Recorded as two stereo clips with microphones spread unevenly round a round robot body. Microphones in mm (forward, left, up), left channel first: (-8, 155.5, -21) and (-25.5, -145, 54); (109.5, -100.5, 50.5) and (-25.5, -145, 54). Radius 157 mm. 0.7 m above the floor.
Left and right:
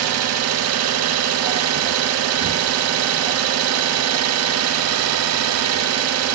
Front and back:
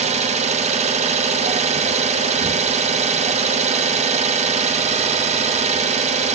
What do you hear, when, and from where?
0.0 s an engine running: 135° right, 0.8 m